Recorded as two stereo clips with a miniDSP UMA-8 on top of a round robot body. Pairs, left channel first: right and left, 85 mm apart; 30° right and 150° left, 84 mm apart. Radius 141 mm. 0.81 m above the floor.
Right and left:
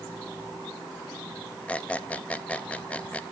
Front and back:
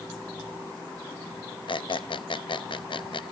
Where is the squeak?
15° right, 0.7 m.